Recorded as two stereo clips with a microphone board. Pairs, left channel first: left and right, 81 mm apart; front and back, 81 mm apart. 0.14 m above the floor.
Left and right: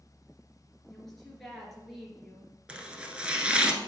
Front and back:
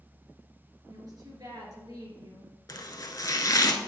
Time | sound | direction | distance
0.9 | a woman speaking | 175° left | 2.5 m
2.7 | chopping | 15° right | 0.7 m